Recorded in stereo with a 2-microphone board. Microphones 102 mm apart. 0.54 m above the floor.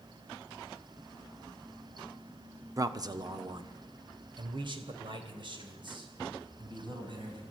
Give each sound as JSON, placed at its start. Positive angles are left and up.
{"t": 2.8, "sound": "a man speaking", "side_deg": -35, "distance_m": 0.7}